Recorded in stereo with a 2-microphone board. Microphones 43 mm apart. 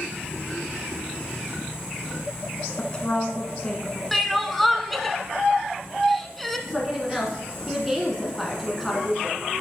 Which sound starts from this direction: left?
A woman speaking, at 2.8 s.